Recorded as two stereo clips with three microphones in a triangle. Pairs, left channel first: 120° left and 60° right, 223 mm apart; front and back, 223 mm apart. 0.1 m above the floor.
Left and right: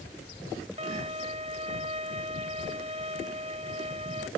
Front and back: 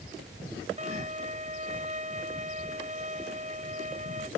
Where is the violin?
120° right.